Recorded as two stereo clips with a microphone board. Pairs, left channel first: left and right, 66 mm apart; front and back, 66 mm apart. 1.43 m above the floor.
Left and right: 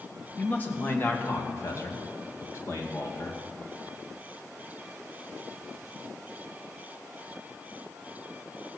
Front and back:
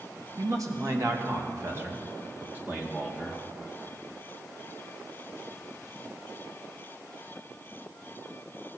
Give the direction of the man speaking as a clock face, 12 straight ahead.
7 o'clock.